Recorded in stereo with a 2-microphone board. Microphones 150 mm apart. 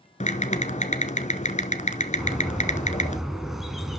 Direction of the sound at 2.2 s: Centre (ahead or behind).